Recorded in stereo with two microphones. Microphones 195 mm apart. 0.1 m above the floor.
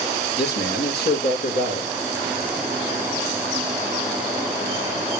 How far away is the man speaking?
About 3.5 m.